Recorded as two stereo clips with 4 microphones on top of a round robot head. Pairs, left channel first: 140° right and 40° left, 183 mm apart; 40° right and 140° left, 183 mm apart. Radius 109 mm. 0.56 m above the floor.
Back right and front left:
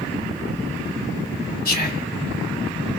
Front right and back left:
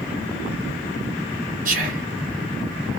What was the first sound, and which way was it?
Whispering, straight behind.